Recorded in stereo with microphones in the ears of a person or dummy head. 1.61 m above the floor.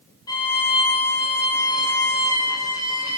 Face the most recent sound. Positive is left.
turn(degrees=20)  # may be behind; listen again after turning